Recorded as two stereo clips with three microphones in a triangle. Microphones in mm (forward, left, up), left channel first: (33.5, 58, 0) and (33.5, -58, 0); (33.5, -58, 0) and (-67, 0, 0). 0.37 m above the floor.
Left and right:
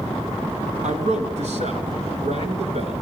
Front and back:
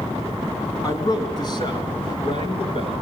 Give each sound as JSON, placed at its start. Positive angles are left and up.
{"t": 0.8, "sound": "a man speaking", "azimuth_deg": -90, "distance_m": 4.0}